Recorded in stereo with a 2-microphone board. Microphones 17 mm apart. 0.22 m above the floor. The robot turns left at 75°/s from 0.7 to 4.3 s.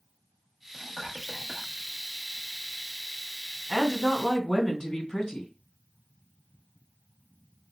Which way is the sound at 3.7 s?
105° left.